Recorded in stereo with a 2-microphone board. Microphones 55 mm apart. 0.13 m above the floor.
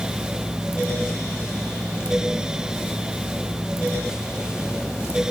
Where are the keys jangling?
No keys jangling in this recording.